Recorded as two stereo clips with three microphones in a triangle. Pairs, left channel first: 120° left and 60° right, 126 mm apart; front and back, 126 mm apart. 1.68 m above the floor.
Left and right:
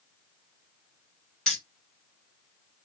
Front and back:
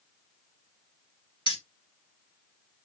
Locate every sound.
1.5 s keys jangling: 35° left, 1.2 m